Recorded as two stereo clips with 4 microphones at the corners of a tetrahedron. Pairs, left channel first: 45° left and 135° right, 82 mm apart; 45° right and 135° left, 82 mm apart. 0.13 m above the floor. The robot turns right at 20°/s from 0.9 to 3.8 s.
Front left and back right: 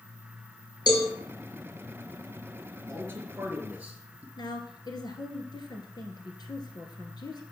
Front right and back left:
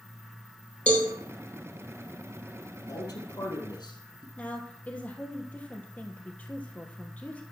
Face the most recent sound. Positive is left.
turn(degrees=25)